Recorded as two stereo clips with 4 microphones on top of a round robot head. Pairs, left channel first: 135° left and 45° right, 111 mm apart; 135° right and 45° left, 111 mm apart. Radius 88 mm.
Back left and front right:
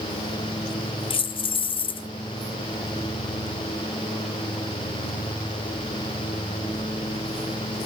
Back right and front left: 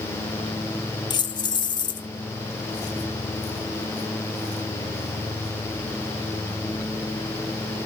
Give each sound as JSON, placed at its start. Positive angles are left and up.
{"t": 1.1, "sound": "keys jangling", "azimuth_deg": 175, "distance_m": 0.8}